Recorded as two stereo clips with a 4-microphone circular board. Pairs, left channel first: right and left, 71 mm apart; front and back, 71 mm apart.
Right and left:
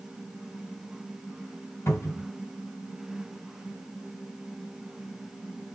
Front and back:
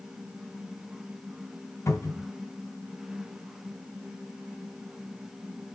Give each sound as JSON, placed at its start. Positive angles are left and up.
{"t": 1.9, "sound": "a cupboard door", "azimuth_deg": -40, "distance_m": 3.0}